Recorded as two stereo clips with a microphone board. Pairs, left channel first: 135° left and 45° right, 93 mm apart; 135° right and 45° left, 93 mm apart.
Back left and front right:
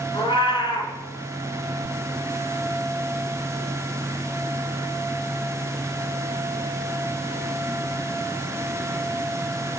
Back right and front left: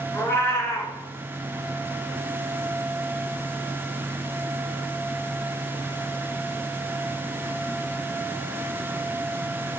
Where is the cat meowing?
165° left, 2.5 m.